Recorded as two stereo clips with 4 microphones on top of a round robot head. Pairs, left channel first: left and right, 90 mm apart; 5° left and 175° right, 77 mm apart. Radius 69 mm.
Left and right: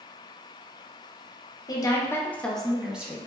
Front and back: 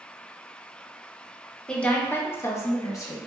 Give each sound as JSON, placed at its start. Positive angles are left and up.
{"t": 1.7, "sound": "a woman speaking", "azimuth_deg": 80, "distance_m": 0.7}